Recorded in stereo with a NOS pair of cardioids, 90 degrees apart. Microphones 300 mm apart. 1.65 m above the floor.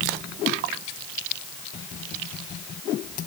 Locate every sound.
Only background noise.